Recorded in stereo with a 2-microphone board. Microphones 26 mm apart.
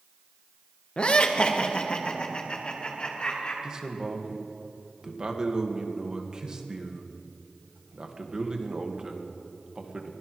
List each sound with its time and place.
1.0 s laughter: 35° left (ahead or behind), 1.1 m
3.6 s a man speaking: 25° right (ahead or behind), 1.6 m